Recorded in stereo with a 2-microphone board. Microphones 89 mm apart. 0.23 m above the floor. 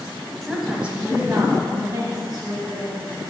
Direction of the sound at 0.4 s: 5° left (ahead or behind).